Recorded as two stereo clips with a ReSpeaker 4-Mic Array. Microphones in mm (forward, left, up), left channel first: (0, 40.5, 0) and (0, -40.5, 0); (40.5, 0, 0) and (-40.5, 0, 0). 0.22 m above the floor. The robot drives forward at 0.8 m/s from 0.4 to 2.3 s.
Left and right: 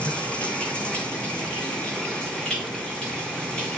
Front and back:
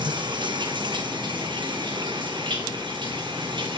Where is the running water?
165° left, 4.5 m; by 3.8 s 170° left, 6 m.